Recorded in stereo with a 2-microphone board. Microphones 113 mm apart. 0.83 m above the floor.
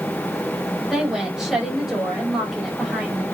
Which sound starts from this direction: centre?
A woman speaking, at 0.9 s.